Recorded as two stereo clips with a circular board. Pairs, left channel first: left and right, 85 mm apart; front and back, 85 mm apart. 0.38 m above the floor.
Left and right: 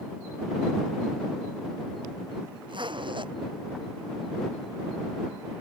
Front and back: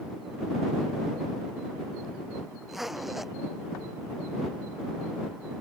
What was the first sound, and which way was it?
A zipper, 90° right.